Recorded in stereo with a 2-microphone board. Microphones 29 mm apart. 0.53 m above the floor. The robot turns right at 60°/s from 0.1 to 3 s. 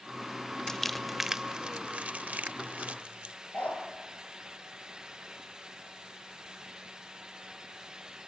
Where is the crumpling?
15° left (ahead or behind), 0.5 m; by 3.4 s 55° right (ahead or behind), 0.5 m.